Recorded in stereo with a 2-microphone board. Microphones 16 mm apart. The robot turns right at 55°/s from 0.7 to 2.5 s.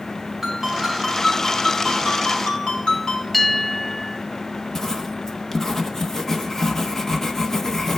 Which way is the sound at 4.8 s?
20° left (ahead or behind).